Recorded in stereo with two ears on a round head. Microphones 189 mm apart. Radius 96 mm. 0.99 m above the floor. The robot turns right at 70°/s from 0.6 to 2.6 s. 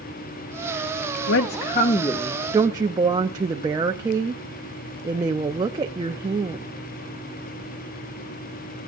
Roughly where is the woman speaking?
Left.